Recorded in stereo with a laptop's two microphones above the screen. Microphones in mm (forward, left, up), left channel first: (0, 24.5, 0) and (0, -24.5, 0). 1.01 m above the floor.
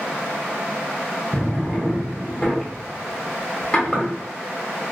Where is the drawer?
20° left (ahead or behind), 0.9 m.